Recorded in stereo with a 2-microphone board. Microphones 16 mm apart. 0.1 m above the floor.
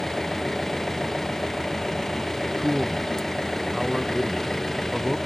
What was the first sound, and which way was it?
An engine running, 30° left (ahead or behind).